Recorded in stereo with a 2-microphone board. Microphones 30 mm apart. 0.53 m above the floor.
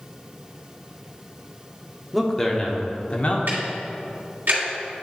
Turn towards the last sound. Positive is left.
turn(degrees=-85)